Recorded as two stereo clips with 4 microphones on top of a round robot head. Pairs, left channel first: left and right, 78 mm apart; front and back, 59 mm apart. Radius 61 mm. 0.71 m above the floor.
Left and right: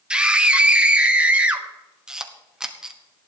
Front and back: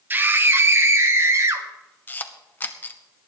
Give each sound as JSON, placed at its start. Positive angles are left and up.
{"t": 0.1, "sound": "a scream", "azimuth_deg": -155, "distance_m": 1.3}
{"t": 2.1, "sound": "a camera shutter", "azimuth_deg": -15, "distance_m": 1.2}